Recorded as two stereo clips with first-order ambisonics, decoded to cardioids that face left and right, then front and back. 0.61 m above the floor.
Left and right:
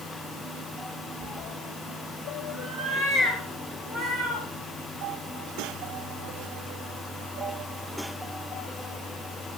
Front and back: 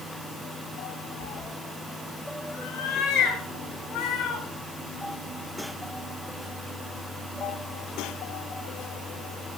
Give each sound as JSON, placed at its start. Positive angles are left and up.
{"t": 1.2, "sound": "a cat meowing", "azimuth_deg": 0, "distance_m": 0.9}